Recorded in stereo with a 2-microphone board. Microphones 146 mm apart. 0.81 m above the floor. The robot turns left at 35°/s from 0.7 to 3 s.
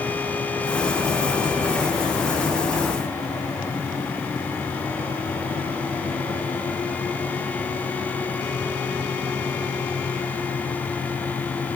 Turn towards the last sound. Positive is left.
No sound to turn to.